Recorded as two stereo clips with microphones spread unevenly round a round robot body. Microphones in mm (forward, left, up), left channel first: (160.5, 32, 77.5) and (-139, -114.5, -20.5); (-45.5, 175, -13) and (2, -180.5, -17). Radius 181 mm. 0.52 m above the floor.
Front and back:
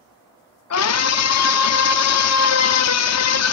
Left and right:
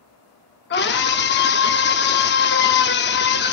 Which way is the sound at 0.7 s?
60° left.